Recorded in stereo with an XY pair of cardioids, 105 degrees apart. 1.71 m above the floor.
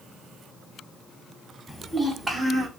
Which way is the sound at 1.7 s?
5° left.